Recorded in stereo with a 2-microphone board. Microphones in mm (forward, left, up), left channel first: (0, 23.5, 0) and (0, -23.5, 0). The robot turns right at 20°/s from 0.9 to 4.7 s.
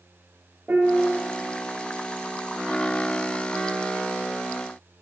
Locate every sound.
0.7 s a piano: 45° right (ahead or behind), 3 m; by 1.2 s 35° right (ahead or behind), 3 m